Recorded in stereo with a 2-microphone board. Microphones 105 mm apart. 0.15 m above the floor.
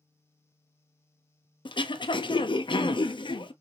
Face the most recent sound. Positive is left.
turn(degrees=55)  # may be behind; listen again after turning